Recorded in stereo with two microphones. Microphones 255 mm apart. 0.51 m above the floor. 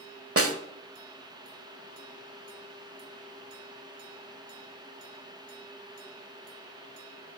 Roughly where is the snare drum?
Right.